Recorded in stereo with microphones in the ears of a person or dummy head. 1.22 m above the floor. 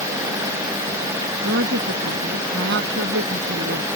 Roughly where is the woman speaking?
Right.